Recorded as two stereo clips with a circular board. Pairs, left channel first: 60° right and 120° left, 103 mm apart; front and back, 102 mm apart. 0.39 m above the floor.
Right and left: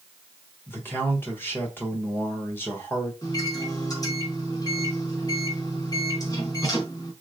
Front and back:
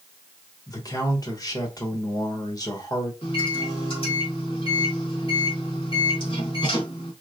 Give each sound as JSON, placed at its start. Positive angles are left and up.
{"t": 0.7, "sound": "a man speaking", "azimuth_deg": -5, "distance_m": 1.1}
{"t": 3.2, "sound": "a microwave", "azimuth_deg": -10, "distance_m": 1.3}